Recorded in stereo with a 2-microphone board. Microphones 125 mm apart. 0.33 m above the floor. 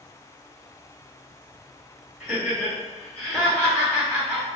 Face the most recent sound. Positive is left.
turn(degrees=35)  # may be behind; listen again after turning